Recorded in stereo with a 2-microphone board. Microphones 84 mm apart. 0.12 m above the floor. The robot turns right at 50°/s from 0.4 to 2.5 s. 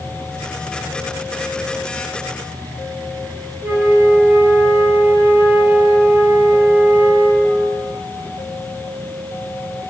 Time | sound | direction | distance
3.6 | a flute | 25° right (ahead or behind) | 0.7 m